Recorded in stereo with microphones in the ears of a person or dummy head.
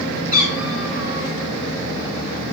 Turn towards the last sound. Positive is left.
turn(degrees=-30)  # may be behind; listen again after turning